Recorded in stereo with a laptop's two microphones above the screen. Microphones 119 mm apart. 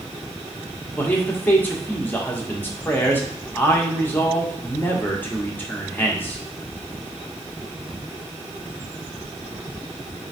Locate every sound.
1.0 s a man speaking: 15° left (ahead or behind), 1.2 m